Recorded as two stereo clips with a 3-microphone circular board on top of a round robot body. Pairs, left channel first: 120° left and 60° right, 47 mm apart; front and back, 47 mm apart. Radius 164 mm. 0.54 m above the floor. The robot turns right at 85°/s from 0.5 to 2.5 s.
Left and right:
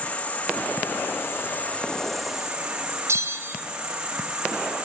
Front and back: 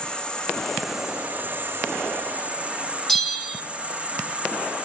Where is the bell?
90° right, 1.7 m.